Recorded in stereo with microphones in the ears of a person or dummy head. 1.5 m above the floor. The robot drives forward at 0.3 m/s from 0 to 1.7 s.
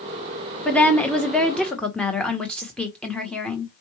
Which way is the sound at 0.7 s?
5° left (ahead or behind).